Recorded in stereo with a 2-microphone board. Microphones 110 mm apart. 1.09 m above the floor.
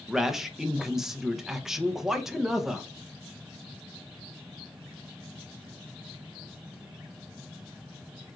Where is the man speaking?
5° right (ahead or behind), 0.8 m.